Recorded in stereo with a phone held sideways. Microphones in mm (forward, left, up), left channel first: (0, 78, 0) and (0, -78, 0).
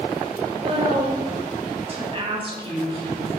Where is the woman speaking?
45° right (ahead or behind), 7 m; by 3.3 s 35° right (ahead or behind), 9 m.